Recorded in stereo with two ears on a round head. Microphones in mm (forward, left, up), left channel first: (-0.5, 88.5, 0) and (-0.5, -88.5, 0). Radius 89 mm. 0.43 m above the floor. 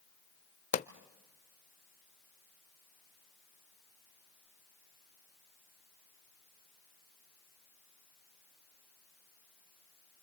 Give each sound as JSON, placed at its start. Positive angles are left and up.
{"t": 0.7, "sound": "a pop", "side_deg": 40, "distance_m": 0.5}